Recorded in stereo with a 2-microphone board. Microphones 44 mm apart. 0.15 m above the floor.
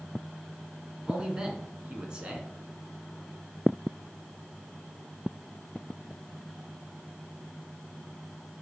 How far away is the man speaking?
About 1.4 m.